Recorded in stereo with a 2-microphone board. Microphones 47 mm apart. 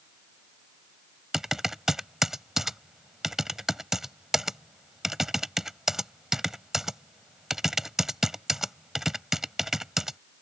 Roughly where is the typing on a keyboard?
Centre.